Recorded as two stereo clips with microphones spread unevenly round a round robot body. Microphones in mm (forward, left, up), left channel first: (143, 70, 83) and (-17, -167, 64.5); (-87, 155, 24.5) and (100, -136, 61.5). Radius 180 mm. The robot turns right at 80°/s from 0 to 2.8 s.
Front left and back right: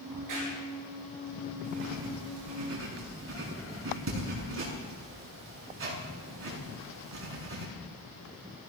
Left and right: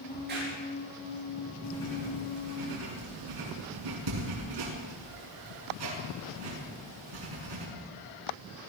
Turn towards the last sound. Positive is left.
turn(degrees=-80)